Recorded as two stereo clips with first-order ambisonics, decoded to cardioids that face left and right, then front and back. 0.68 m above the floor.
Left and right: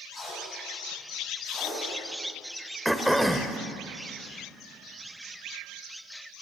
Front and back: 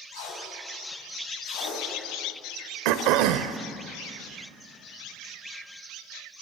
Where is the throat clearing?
Straight behind, 0.8 m.